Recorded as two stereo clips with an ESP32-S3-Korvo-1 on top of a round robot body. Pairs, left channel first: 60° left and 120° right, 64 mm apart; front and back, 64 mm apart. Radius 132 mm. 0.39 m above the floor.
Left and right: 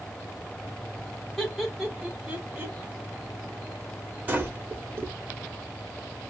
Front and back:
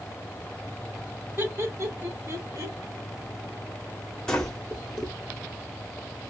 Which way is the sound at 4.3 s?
75° right.